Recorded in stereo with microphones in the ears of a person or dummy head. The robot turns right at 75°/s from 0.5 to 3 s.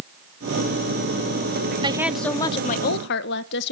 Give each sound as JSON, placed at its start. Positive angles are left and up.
{"t": 1.8, "sound": "a woman speaking", "azimuth_deg": -25, "distance_m": 1.0}